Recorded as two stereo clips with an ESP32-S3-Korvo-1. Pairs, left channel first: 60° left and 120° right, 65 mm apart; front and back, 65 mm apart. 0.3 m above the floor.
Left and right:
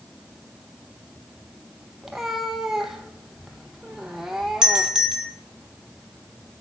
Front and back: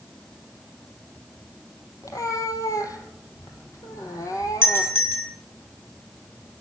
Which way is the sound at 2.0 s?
35° right.